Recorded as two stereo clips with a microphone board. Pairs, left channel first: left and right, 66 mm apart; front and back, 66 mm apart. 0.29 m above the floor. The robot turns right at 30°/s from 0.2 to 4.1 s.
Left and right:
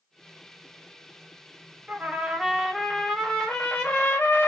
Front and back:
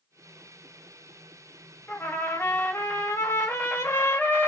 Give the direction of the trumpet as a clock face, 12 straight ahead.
1 o'clock.